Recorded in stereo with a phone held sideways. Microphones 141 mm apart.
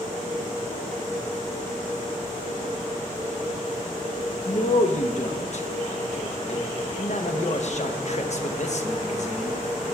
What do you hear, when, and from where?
4.5 s a man speaking: 55° left (ahead or behind), 0.9 m